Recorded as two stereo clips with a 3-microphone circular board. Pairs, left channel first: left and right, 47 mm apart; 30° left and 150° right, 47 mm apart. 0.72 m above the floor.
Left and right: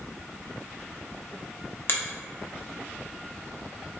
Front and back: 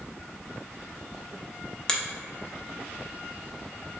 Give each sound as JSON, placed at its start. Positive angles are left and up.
{"t": 1.9, "sound": "a finger snap", "azimuth_deg": 105, "distance_m": 0.6}